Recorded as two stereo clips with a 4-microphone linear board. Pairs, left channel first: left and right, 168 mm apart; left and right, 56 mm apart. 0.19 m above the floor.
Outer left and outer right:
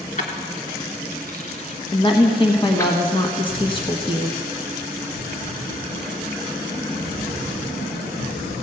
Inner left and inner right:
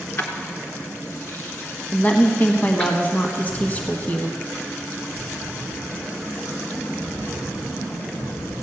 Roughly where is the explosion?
Left.